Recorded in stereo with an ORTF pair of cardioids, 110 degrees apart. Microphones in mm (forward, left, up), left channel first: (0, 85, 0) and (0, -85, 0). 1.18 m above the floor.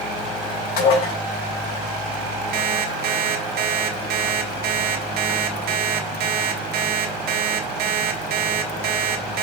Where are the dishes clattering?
70° left, 4 m.